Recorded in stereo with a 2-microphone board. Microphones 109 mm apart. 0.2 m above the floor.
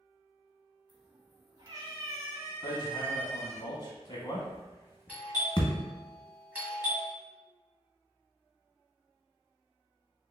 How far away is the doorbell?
About 1.7 m.